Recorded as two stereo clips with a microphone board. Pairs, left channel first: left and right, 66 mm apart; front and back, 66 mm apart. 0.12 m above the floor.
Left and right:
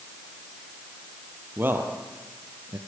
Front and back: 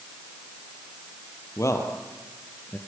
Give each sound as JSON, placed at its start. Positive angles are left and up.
{"t": 1.6, "sound": "a man speaking", "azimuth_deg": -35, "distance_m": 3.0}